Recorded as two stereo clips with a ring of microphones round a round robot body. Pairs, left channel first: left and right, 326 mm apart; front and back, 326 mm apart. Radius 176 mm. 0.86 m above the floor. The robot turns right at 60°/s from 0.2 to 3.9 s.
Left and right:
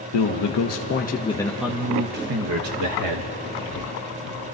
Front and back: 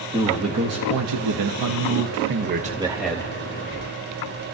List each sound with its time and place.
0.1 s a man speaking: 100° left, 0.9 m; by 3.4 s 75° right, 0.9 m